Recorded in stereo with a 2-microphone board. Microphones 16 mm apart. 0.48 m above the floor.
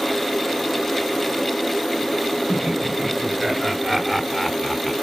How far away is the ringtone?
No ringtone in this recording.